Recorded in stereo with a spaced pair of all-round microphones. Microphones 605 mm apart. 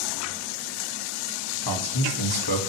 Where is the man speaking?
40° left (ahead or behind), 1.7 m.